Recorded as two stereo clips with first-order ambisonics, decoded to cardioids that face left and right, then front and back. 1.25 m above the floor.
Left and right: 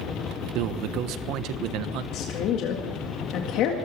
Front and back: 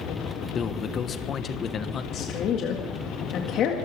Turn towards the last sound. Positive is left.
turn(degrees=50)